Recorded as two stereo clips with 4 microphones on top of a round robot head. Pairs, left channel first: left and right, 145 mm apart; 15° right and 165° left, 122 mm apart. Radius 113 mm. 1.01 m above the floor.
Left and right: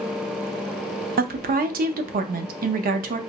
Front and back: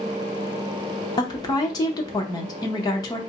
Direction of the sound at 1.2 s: 70° right.